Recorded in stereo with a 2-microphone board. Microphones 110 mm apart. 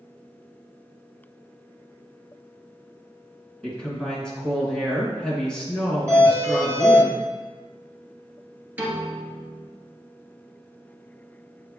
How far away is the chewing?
No chewing in this recording.